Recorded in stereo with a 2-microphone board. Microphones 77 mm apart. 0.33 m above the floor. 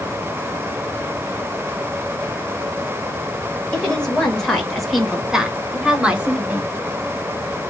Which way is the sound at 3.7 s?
15° left (ahead or behind).